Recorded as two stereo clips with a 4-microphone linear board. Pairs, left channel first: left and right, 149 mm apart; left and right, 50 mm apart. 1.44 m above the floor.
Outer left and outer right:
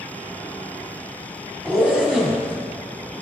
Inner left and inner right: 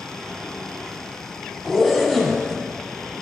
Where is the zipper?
5° right (ahead or behind), 1.2 m.